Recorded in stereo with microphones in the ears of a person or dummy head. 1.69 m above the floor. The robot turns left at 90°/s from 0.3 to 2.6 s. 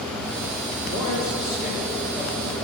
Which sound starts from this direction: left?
A man speaking, at 0.8 s.